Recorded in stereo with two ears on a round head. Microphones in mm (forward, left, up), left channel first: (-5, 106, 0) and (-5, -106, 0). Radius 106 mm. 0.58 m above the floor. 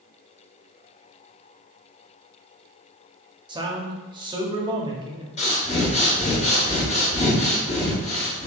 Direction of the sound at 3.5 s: 20° right (ahead or behind).